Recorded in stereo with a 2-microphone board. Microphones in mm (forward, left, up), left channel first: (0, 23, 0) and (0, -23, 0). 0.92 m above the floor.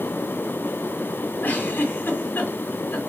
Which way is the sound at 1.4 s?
45° left (ahead or behind).